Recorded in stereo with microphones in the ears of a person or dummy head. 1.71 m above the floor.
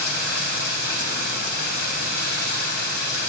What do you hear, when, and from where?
0.0 s running water: 55° left (ahead or behind), 3.5 m